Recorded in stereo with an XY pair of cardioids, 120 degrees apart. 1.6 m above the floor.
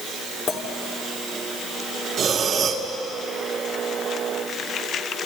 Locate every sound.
0.5 s a clink: 65° left, 3 m
2.2 s breathing: 55° right, 2 m